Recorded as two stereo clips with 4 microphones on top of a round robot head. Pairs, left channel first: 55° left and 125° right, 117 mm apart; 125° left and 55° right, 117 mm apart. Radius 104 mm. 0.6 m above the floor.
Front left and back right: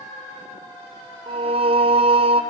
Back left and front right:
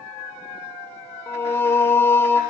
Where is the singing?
165° right, 1.1 m.